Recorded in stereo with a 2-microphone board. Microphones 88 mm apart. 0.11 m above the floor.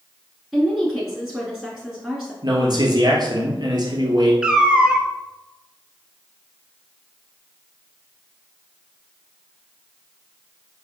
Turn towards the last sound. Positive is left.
turn(degrees=-10)  # may be behind; listen again after turning